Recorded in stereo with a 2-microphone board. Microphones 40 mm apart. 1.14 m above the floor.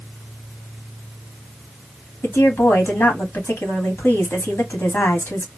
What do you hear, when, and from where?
2.2 s a woman speaking: 90° left, 2 m